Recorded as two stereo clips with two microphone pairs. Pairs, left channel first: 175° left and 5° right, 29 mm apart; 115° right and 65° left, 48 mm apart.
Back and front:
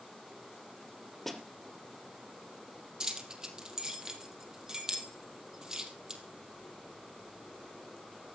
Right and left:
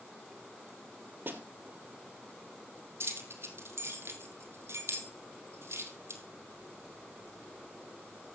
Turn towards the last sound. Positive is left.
turn(degrees=55)